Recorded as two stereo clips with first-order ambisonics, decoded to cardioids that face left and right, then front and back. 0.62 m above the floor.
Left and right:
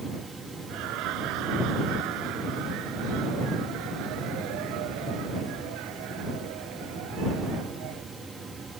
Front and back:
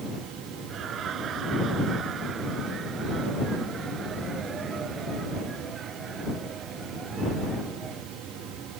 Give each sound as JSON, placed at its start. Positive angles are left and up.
{"t": 0.7, "sound": "laughter", "azimuth_deg": -125}